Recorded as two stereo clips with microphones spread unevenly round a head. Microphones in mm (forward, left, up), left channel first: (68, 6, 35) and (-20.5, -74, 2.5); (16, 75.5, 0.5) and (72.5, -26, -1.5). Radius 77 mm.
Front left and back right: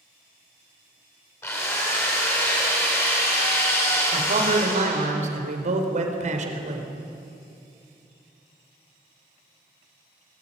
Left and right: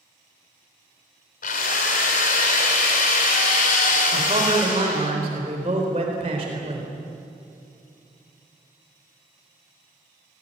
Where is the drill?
120° left, 3 m.